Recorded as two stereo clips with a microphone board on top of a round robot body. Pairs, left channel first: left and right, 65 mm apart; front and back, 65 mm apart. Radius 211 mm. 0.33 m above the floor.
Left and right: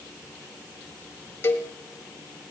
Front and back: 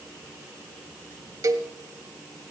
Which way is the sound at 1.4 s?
145° left.